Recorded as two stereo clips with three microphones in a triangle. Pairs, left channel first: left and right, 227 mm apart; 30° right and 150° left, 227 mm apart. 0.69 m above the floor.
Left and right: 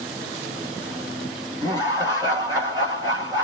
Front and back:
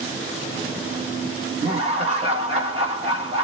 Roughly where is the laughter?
Behind right.